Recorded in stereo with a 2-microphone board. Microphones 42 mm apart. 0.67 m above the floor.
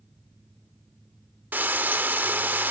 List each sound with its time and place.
1.5 s frying: 50° right (ahead or behind)